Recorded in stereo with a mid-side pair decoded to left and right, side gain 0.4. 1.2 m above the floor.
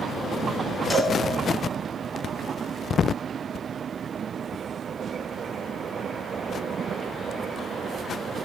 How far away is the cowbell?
About 4 m.